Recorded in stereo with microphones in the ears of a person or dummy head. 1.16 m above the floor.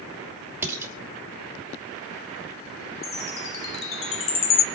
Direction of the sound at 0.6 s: 10° right (ahead or behind).